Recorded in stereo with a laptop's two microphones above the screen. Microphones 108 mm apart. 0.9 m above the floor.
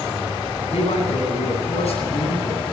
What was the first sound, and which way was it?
A man speaking, 75° left (ahead or behind).